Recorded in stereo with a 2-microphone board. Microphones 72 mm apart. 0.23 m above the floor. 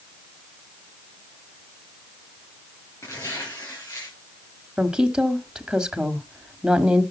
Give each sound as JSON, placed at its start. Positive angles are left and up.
{"t": 3.0, "sound": "tearing paper", "side_deg": 40, "distance_m": 9.0}
{"t": 4.8, "sound": "a woman speaking", "side_deg": -10, "distance_m": 1.4}